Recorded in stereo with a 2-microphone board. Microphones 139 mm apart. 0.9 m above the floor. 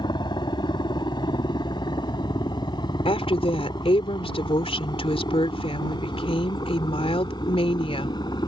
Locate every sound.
0.0 s a helicopter: 35° left (ahead or behind)
3.0 s a woman speaking: 45° left (ahead or behind)